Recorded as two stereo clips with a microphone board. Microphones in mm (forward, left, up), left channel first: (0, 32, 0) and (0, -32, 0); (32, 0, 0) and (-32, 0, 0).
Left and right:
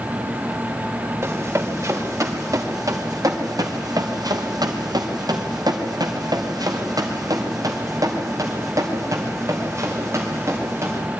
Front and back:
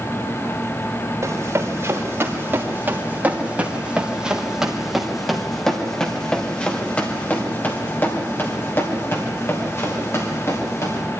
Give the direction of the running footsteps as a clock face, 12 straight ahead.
4 o'clock.